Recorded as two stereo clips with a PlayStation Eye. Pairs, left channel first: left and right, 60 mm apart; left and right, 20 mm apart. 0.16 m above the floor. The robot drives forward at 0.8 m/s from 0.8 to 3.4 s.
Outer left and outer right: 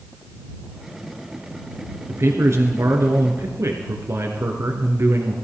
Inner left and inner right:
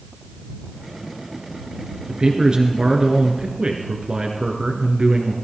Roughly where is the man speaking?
Right.